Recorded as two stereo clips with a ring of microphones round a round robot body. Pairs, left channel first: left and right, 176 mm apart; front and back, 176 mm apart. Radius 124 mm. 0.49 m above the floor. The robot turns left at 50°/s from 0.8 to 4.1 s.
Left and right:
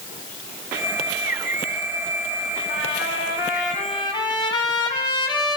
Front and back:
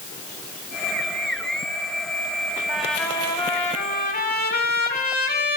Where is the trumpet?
95° left, 2 m; by 5.6 s 25° left, 2 m.